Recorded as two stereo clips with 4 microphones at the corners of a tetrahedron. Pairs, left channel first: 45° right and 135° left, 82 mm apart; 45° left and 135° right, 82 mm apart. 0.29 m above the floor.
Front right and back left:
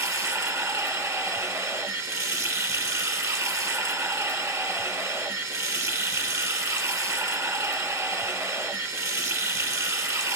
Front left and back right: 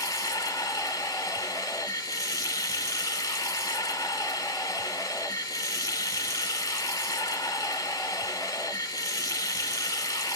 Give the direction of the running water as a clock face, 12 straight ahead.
9 o'clock.